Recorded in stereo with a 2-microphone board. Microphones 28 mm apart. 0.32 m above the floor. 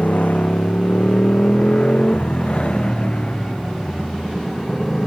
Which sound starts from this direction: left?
A motorcycle, at 0.0 s.